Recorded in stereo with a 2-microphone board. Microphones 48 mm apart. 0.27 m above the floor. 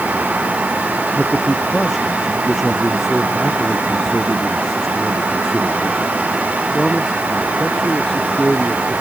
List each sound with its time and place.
1.2 s a man speaking: 5° right (ahead or behind); by 8.9 s 5° left (ahead or behind)